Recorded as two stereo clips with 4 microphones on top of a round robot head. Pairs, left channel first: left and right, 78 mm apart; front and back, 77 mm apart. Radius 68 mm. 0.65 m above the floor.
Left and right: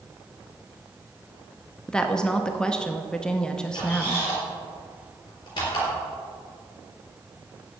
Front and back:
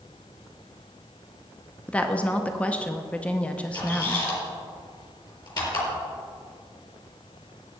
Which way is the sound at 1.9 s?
30° left.